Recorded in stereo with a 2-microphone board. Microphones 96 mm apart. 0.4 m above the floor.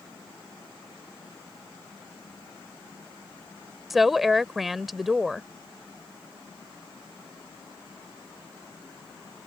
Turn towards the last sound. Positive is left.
turn(degrees=0)  # may be behind; listen again after turning